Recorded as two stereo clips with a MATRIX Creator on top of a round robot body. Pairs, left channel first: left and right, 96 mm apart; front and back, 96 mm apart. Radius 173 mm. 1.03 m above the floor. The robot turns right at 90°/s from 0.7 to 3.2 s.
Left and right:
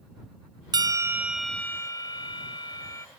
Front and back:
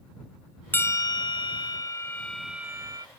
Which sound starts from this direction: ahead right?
A bell, at 0.7 s.